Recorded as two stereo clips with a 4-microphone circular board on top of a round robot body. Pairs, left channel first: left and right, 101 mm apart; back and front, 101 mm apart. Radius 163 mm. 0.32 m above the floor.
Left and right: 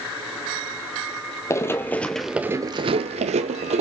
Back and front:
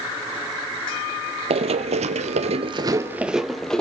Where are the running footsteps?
25° left, 0.9 m; by 3.8 s 100° right, 1.0 m.